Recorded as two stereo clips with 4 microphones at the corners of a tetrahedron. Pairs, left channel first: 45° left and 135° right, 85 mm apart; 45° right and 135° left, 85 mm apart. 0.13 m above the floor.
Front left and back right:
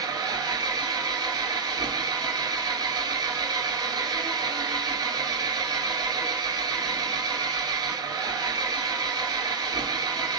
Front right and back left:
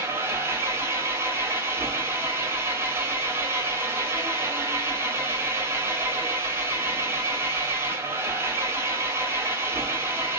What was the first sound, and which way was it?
An engine running, 165° right.